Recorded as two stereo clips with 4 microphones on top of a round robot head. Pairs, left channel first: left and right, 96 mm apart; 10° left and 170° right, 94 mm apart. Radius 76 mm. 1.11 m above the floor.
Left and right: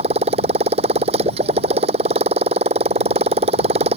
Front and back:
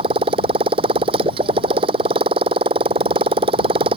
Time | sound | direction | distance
0.0 | a motorcycle | 125° right | ?